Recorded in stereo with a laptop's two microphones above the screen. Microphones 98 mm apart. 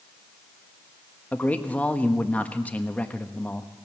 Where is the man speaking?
15° left (ahead or behind), 1.2 m.